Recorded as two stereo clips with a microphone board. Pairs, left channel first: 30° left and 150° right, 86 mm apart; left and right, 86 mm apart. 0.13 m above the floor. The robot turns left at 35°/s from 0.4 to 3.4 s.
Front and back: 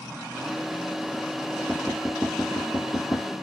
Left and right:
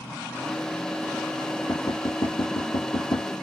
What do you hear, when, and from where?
1.7 s knocking: 140° left, 2.5 m; by 3.3 s 85° left, 2.5 m